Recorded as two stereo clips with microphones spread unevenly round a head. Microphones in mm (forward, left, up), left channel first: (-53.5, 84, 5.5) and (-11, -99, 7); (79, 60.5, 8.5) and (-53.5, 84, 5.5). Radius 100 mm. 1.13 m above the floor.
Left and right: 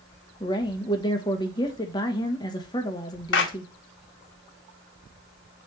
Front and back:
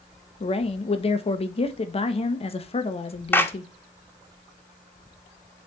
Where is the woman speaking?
35° left, 1.1 m.